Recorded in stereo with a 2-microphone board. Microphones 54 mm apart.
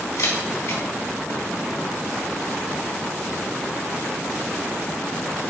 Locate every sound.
0.2 s a camera shutter: 75° left (ahead or behind), 2.5 m